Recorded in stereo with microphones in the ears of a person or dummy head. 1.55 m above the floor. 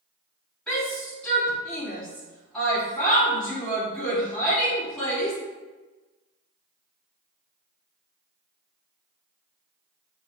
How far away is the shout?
About 3 m.